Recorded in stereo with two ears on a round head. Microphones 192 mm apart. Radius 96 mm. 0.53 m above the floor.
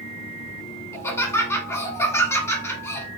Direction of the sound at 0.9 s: 15° left (ahead or behind).